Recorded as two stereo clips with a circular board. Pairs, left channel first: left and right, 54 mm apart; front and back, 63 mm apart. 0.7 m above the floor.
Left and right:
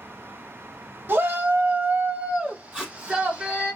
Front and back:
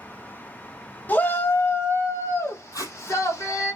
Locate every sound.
1.1 s a shout: 55° right, 1.0 m; by 3.7 s 20° right, 2.5 m
2.7 s tape being pulled: 20° right, 4.5 m